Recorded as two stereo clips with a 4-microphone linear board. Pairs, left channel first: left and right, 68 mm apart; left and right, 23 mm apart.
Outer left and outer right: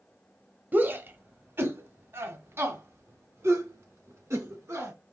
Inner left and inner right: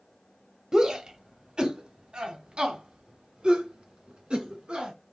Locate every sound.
0.7 s a shout: 30° right (ahead or behind), 1.0 m; by 4.9 s 45° right (ahead or behind), 3 m